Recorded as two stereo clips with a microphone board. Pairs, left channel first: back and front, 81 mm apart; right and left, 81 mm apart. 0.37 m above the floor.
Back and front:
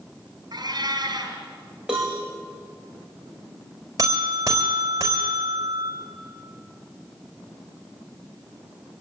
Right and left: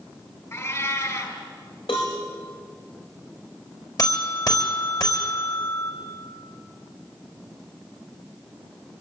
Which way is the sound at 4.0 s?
50° right.